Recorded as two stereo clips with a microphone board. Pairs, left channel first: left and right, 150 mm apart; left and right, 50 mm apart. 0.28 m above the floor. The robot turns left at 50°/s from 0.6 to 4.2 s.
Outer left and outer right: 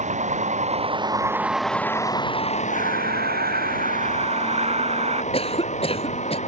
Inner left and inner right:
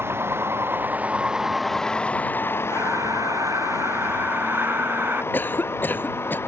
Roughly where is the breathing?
Ahead right.